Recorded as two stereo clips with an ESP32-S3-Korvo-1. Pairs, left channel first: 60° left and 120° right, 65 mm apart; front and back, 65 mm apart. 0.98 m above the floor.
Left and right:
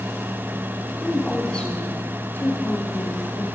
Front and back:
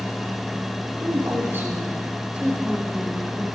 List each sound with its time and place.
1.0 s a woman speaking: 145° left, 3 m; by 3.5 s 95° left, 5 m